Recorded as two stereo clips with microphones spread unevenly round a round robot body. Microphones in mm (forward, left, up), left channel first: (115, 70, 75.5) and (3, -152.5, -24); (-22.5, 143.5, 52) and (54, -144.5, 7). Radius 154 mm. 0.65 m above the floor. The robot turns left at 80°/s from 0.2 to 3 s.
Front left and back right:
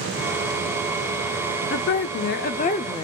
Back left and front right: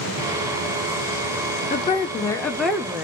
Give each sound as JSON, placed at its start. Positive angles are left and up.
{"t": 1.7, "sound": "a woman speaking", "azimuth_deg": 65, "distance_m": 0.6}